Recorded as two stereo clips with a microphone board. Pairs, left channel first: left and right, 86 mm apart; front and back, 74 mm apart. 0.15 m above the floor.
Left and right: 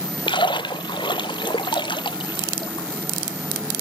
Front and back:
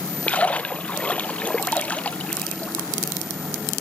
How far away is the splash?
About 0.6 m.